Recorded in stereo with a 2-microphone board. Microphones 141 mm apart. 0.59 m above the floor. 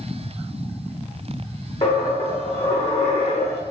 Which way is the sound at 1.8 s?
50° left (ahead or behind).